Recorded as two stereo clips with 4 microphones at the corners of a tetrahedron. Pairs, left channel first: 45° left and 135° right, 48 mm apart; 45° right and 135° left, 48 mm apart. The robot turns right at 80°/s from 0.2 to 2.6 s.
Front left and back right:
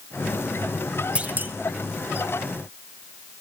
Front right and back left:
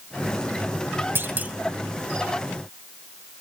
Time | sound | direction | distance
1.1 | a clunk | 160° left | 1.0 m